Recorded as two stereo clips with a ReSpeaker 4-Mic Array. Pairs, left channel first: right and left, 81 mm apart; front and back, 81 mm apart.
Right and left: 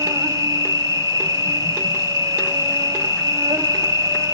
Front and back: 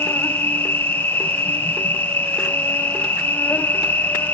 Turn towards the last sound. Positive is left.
turn(degrees=60)